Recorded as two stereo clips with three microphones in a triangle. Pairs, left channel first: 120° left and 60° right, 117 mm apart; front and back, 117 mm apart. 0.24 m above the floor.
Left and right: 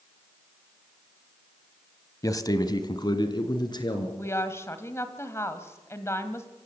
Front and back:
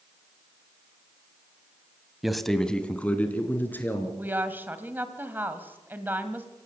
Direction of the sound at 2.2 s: 95° left.